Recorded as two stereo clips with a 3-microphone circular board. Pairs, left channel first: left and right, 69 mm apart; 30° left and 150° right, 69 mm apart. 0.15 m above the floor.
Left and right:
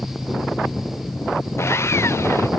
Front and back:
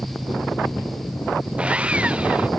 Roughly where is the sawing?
Behind left.